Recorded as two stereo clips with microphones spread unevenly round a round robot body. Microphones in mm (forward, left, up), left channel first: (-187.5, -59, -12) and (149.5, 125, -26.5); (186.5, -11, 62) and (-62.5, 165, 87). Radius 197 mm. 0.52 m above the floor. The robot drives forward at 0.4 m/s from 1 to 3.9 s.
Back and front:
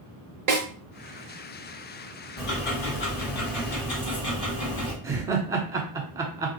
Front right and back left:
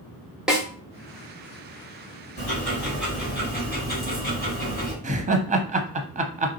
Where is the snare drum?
55° left, 1.3 m.